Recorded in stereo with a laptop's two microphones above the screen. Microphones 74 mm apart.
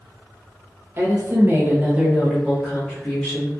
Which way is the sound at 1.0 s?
35° right (ahead or behind).